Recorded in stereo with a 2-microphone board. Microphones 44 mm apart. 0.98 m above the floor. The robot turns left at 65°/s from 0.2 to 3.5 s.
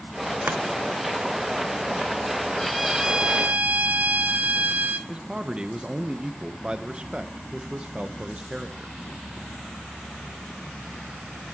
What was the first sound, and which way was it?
Chopping, 55° right (ahead or behind).